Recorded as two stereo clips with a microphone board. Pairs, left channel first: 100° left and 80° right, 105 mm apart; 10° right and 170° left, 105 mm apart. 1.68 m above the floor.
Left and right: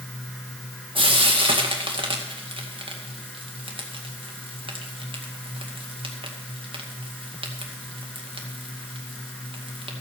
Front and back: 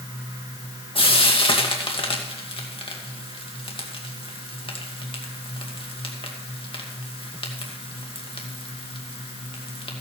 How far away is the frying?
About 2 m.